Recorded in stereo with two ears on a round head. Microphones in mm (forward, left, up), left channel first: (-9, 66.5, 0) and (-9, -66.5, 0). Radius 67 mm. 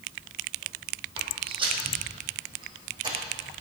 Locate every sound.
1.2 s footsteps: 35° right (ahead or behind), 2.5 m; by 3.5 s 30° right (ahead or behind), 4 m